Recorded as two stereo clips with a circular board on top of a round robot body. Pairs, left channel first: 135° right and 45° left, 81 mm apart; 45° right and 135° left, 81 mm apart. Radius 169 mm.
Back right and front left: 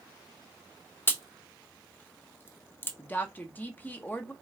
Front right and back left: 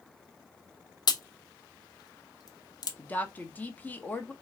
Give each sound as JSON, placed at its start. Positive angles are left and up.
{"t": 1.1, "sound": "a crack", "azimuth_deg": -75, "distance_m": 1.0}
{"t": 3.0, "sound": "a woman speaking", "azimuth_deg": -90, "distance_m": 1.0}